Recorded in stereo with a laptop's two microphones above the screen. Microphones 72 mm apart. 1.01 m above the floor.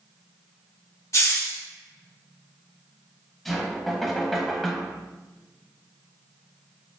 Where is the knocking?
Centre (ahead or behind), 0.9 m.